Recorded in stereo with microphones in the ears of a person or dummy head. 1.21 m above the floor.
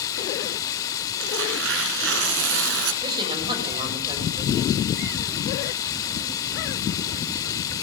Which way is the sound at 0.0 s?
25° left (ahead or behind).